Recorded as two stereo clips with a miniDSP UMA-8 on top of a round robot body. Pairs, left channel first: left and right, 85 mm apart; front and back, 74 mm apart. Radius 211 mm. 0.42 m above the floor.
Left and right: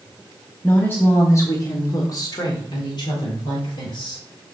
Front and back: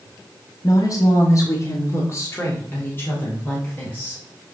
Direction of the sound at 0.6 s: 20° left.